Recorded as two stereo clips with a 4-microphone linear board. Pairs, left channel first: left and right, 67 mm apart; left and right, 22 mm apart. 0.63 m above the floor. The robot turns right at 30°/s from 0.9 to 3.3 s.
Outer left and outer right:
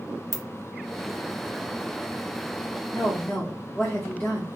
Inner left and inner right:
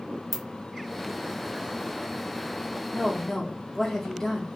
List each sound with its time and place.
0.3 s a ringtone: centre (ahead or behind), 0.9 m
2.9 s a woman speaking: 35° left (ahead or behind), 1.0 m; by 4.5 s 25° left (ahead or behind), 1.0 m